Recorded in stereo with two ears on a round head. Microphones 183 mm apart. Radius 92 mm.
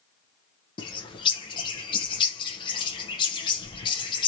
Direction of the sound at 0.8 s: 25° left (ahead or behind).